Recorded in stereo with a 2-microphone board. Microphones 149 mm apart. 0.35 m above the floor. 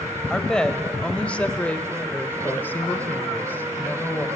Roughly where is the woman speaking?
Centre.